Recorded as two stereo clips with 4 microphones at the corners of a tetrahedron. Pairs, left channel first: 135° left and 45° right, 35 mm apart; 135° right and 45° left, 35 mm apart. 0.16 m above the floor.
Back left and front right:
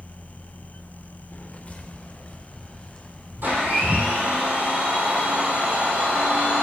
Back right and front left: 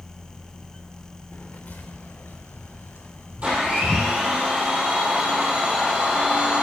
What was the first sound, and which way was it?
Footsteps, 170° right.